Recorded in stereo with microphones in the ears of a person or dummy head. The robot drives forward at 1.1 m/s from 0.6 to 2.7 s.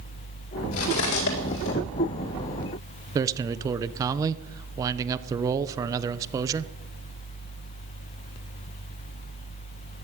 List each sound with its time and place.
0.7 s cutlery clinking: 80° left, 3.5 m; by 1.7 s 65° left (ahead or behind), 4 m
3.1 s a man speaking: 20° right (ahead or behind), 0.9 m